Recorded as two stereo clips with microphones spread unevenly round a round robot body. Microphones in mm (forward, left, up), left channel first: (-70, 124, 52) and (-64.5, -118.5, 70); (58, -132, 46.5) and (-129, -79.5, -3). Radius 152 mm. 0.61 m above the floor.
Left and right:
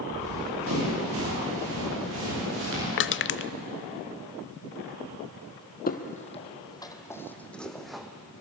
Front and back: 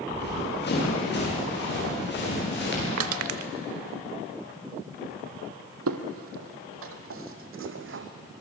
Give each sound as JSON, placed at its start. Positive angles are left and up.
{"t": 0.1, "sound": "running footsteps", "azimuth_deg": -45, "distance_m": 9.5}
{"t": 3.0, "sound": "crushing", "azimuth_deg": 135, "distance_m": 0.5}
{"t": 5.9, "sound": "footsteps", "azimuth_deg": 145, "distance_m": 1.4}